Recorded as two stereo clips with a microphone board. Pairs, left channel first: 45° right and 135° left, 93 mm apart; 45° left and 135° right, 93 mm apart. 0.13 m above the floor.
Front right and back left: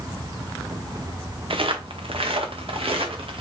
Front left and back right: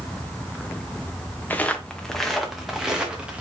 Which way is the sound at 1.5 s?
115° left.